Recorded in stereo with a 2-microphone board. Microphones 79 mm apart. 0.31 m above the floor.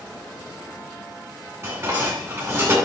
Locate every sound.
1.6 s dishes clattering: 30° right (ahead or behind), 2 m